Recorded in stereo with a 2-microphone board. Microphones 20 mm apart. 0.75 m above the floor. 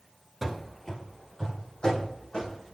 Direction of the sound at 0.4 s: 10° right (ahead or behind).